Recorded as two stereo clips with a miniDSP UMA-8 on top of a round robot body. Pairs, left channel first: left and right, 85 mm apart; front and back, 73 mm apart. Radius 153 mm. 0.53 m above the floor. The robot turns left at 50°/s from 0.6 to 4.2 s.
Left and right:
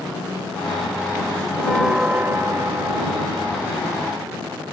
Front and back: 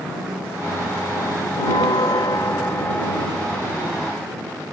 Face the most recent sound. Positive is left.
turn(degrees=-125)